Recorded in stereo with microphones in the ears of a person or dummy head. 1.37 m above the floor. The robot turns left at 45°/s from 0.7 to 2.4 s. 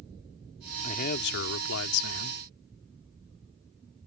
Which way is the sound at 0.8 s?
140° left.